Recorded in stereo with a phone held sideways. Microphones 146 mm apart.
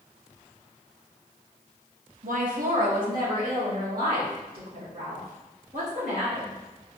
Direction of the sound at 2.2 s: 65° right (ahead or behind).